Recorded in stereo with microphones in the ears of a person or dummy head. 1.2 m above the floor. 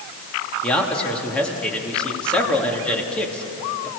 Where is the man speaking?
10° left (ahead or behind), 2.5 m.